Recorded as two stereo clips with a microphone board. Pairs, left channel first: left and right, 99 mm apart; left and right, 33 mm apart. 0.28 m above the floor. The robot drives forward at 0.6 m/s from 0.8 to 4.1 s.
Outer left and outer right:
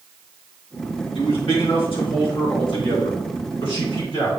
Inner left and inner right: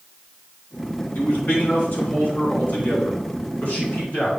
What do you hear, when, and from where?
1.1 s a man speaking: 65° left (ahead or behind), 3 m; by 4.3 s 50° left (ahead or behind), 3 m